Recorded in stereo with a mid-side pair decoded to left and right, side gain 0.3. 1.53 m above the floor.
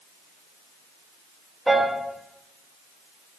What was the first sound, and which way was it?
A piano, 25° right.